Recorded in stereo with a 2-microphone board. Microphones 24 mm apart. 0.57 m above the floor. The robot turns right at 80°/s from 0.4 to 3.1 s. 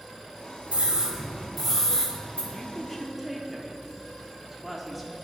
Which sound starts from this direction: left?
A woman speaking, at 2.5 s.